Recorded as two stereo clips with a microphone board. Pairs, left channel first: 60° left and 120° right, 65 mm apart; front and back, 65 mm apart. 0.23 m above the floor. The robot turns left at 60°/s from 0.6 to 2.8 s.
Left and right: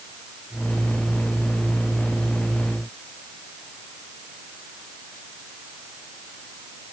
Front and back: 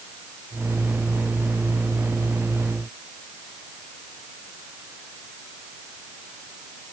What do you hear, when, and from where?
Only background noise.